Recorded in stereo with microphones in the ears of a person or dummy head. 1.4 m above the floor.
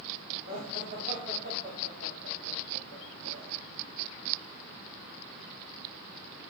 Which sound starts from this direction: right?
Laughter, at 0.5 s.